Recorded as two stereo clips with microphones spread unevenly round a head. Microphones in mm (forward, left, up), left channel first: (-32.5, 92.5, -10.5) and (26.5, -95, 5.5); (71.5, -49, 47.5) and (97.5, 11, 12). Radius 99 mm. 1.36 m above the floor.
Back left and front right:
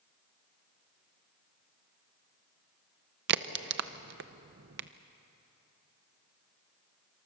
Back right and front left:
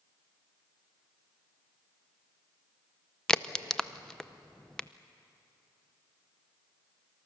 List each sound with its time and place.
3.3 s a crack: 35° right, 0.8 m